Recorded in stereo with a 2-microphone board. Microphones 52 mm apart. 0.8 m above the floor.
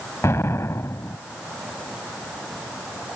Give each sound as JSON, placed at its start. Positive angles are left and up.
{"t": 0.2, "sound": "an explosion", "side_deg": 60}